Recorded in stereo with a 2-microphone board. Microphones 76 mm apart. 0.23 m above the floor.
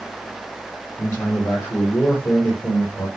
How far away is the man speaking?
About 8.5 m.